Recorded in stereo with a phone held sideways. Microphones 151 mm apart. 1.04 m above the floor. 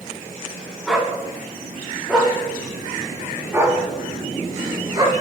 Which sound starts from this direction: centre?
A dog barking, at 0.9 s.